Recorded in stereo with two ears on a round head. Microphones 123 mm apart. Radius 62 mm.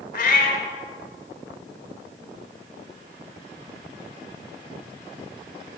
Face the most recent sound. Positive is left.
turn(degrees=65)  # may be behind; listen again after turning